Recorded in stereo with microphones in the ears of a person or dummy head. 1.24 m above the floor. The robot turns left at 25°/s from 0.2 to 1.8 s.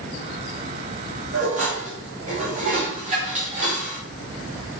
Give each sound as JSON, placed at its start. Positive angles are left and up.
{"t": 1.3, "sound": "dishes clattering", "side_deg": -50, "distance_m": 1.4}